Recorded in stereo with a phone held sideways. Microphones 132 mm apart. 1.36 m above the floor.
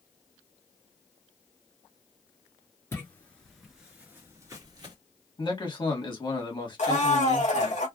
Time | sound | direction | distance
2.9 | footsteps | 20° left (ahead or behind) | 1.4 m
5.4 | a man speaking | 35° left (ahead or behind) | 1.5 m
6.8 | a blender | 60° left (ahead or behind) | 1.8 m